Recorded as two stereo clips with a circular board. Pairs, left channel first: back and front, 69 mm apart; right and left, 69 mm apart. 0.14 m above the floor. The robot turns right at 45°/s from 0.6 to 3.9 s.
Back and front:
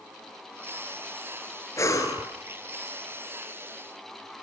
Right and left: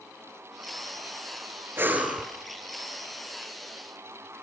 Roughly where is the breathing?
Behind left.